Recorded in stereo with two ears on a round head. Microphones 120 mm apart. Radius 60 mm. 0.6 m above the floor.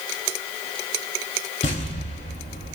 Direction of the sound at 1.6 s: 45° left (ahead or behind).